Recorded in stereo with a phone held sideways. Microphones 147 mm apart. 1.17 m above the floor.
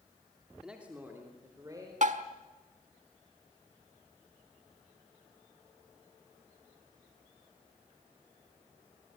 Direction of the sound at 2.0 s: 55° right (ahead or behind).